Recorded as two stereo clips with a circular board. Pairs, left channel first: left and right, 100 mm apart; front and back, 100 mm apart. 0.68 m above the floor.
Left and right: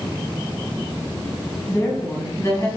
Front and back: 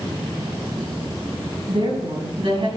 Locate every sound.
1.7 s a woman speaking: 155° left, 4.5 m; by 2.7 s 150° left, 4.5 m